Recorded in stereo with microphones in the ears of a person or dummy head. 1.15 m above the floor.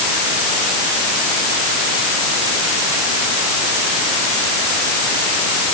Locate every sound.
Only background noise.